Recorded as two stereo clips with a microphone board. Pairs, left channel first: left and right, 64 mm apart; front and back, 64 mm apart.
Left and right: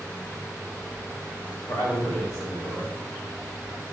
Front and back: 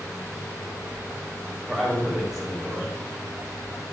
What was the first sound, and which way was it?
A man speaking, 100° left.